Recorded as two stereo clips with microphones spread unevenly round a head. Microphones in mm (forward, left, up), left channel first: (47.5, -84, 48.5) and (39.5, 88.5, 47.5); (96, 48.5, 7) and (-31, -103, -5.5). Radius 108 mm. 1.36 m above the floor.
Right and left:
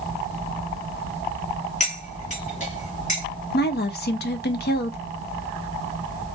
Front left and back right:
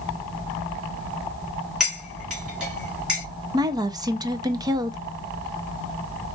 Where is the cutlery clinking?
40° right, 2 m.